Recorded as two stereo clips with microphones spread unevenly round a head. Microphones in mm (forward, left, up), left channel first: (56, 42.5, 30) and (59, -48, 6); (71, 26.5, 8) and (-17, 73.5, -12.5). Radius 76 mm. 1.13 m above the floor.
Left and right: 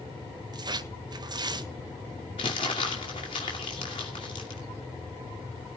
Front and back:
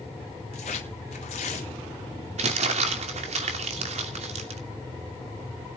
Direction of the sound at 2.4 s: 150° left.